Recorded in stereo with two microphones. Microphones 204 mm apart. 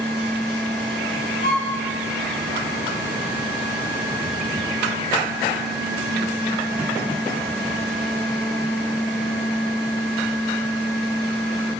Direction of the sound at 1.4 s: 55° left (ahead or behind).